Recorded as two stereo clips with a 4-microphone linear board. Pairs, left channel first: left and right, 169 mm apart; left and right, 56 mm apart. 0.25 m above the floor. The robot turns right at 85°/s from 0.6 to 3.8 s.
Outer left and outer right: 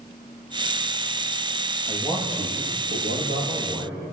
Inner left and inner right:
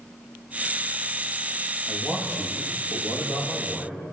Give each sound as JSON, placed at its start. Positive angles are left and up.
{"t": 1.9, "sound": "a man speaking", "azimuth_deg": -5, "distance_m": 9.5}